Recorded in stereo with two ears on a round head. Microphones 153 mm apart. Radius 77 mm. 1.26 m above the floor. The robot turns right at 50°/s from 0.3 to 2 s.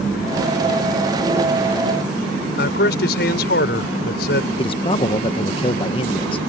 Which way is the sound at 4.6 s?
30° left (ahead or behind).